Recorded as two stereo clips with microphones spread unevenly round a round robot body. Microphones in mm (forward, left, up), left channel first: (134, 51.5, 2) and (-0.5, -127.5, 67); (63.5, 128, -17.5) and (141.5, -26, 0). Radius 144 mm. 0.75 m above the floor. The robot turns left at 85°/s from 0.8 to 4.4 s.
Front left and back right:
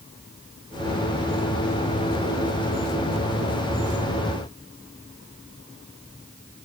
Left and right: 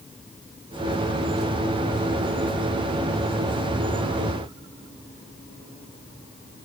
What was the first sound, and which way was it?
Only background noise.